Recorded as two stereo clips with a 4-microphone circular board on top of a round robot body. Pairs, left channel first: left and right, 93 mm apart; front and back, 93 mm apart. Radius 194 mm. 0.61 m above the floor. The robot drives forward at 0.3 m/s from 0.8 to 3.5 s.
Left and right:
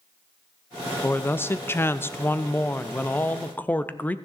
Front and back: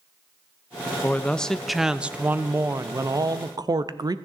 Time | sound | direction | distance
1.0 | a man speaking | 50° left | 0.8 m